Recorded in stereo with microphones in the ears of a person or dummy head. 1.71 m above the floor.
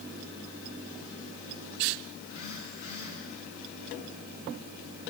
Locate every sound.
2.2 s a phone buzzing: 55° left (ahead or behind), 6 m